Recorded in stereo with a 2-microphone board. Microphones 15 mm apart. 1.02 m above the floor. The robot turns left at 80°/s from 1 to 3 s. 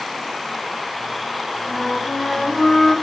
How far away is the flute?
About 2.0 m.